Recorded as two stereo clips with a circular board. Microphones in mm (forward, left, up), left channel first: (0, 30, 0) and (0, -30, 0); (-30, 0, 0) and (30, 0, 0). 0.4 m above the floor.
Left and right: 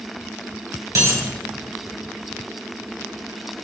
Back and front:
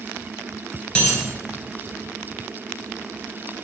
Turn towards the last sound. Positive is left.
turn(degrees=-110)